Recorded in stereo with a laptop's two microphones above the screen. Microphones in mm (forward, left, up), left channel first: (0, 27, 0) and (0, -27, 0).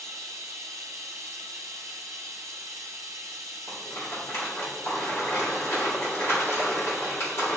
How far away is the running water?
About 0.8 m.